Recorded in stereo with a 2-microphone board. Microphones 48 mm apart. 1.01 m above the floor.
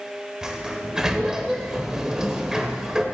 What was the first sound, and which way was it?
A sliding door, 15° right (ahead or behind).